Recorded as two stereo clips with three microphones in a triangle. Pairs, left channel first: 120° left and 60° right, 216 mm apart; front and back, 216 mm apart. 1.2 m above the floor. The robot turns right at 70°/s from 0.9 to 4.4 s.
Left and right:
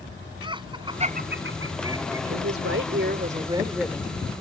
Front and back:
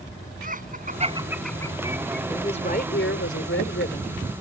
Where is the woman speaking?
75° right; by 4.3 s 65° left.